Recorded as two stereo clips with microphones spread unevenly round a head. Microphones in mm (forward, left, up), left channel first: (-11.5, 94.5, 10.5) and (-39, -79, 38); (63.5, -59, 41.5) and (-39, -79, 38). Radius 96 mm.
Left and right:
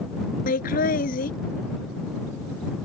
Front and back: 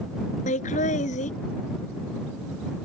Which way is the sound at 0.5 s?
35° left.